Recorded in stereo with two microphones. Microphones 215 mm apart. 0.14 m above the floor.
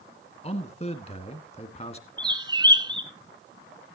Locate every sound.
0.4 s a man speaking: 30° left (ahead or behind), 1.6 m
2.2 s a bird: 20° right (ahead or behind), 1.0 m